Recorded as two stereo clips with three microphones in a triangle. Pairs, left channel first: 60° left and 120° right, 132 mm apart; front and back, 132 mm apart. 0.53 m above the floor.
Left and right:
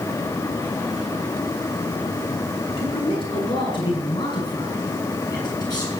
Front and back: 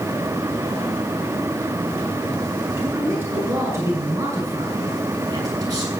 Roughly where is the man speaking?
Left.